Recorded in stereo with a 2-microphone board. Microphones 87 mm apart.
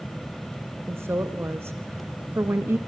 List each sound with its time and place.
0.9 s a woman speaking: 30° right (ahead or behind), 1.2 m